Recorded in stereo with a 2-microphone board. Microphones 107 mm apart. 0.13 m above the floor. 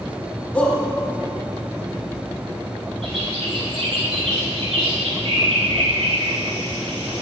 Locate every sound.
0.5 s a shout: 10° left (ahead or behind), 5 m
3.0 s a bird: 60° right (ahead or behind), 4 m